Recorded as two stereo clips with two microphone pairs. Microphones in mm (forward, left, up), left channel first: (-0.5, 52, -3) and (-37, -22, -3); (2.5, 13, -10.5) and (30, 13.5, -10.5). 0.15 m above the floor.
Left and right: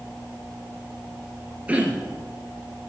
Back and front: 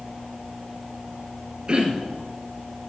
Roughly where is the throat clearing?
Ahead right.